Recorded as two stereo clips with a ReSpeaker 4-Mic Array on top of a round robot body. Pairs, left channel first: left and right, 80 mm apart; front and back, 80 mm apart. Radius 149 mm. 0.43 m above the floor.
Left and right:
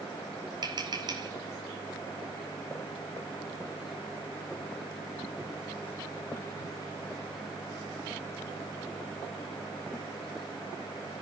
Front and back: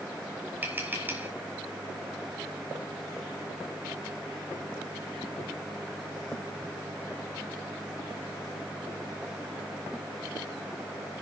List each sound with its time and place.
0.6 s tapping: 115° right, 3.5 m